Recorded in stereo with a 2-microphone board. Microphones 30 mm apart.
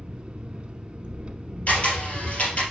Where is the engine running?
35° right (ahead or behind), 0.8 m.